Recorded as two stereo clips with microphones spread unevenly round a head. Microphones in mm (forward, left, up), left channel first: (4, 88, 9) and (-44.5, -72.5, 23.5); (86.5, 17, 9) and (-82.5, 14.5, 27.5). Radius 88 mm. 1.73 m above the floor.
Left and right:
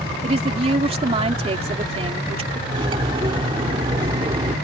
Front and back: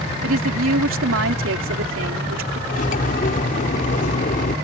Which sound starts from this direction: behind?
A woman speaking, at 0.2 s.